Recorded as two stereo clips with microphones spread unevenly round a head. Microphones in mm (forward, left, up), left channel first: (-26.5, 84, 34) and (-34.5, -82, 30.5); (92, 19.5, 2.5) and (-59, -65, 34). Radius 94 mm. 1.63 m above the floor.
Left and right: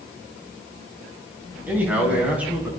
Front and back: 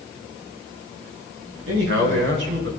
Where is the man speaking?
170° right, 6.5 m; by 2.7 s 175° right, 6.5 m.